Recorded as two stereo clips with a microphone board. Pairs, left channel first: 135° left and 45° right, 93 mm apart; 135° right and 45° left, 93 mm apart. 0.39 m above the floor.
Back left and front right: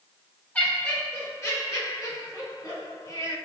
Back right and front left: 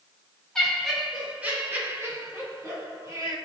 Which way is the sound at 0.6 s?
160° left.